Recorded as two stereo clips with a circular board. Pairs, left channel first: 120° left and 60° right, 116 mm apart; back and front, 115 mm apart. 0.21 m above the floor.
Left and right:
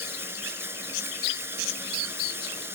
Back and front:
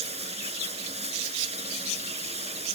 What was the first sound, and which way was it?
Running water, 5° left.